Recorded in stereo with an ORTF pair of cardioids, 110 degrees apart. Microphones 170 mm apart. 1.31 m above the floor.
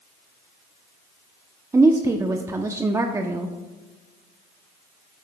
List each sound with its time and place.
1.7 s a woman speaking: 20° right, 0.8 m